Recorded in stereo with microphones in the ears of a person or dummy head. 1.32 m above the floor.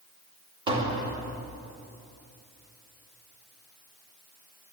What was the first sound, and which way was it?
Tapping, 25° right (ahead or behind).